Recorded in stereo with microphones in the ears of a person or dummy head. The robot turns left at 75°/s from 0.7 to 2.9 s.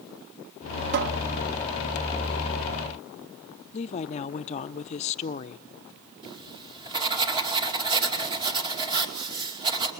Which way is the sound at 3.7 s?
40° left (ahead or behind).